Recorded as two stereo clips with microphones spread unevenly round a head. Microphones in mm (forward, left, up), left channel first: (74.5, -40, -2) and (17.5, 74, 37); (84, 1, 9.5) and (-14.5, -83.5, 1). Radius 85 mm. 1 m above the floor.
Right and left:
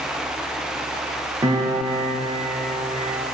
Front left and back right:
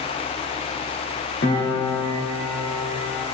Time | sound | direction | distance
1.4 | a piano | 55° left | 2.0 m